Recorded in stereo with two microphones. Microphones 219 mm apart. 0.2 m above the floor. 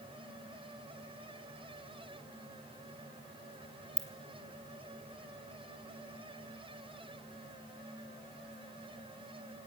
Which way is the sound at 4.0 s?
5° right (ahead or behind).